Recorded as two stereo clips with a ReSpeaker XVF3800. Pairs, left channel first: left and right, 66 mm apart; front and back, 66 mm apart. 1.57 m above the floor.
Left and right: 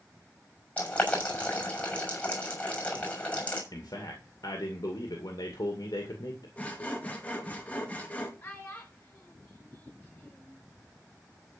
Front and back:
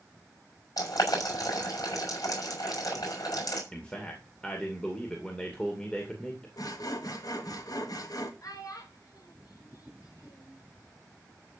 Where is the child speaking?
30° left, 5.5 m.